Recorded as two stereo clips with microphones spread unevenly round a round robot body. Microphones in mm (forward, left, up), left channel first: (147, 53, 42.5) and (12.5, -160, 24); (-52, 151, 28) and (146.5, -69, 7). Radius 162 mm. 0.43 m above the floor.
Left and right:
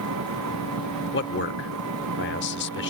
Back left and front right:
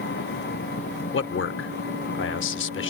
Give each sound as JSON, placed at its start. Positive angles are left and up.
{"t": 0.0, "sound": "an engine running", "azimuth_deg": -165}
{"t": 1.1, "sound": "a man speaking", "azimuth_deg": 90}